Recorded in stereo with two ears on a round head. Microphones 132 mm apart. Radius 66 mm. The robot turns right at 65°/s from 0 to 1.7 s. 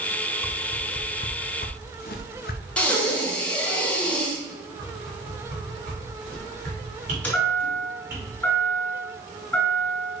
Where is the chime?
10° left (ahead or behind), 2.5 m.